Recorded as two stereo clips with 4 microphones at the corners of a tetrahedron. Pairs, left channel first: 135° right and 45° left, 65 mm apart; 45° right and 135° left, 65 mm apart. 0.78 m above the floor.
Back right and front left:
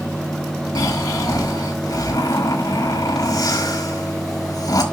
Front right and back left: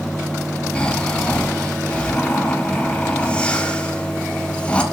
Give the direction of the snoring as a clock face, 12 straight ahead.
4 o'clock.